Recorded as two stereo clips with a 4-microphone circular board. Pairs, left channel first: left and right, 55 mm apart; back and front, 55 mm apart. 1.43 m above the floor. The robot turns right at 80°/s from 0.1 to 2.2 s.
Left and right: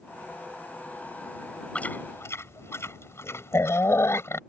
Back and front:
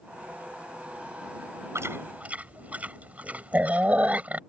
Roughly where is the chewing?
Ahead left.